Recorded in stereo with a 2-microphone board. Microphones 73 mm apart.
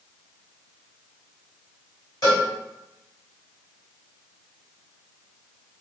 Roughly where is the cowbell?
Left.